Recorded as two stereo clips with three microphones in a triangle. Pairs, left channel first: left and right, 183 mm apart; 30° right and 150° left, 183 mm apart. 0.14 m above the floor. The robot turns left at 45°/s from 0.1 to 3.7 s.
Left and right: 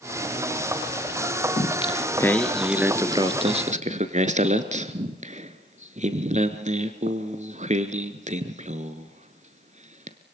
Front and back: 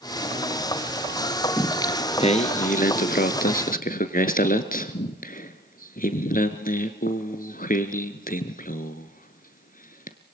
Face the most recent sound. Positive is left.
turn(degrees=-50)